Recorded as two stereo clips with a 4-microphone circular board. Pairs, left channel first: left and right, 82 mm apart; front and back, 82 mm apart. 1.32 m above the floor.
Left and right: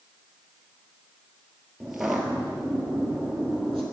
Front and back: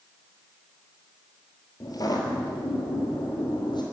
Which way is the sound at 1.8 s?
10° right.